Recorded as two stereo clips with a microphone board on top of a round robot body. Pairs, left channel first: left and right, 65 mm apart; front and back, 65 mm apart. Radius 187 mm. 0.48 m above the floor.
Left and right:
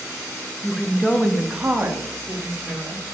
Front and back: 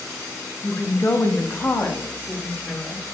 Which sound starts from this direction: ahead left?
A woman speaking, at 0.6 s.